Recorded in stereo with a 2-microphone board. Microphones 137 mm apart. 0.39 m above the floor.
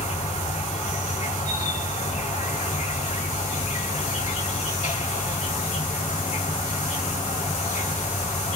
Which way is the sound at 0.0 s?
60° left (ahead or behind).